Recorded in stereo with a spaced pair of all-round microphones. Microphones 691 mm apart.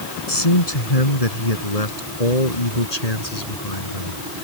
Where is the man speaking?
55° left (ahead or behind); by 4.4 s 70° left (ahead or behind).